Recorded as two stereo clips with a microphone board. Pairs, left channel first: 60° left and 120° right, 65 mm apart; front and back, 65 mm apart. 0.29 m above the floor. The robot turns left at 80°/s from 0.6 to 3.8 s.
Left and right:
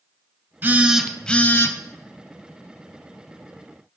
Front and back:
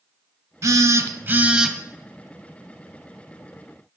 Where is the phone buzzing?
175° right, 0.5 m; by 1.8 s 95° left, 0.5 m.